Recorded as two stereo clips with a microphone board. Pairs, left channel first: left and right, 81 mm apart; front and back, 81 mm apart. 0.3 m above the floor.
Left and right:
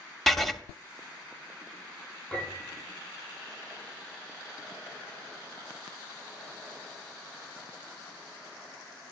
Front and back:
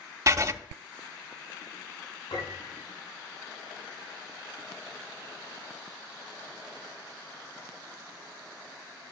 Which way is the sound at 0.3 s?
175° left.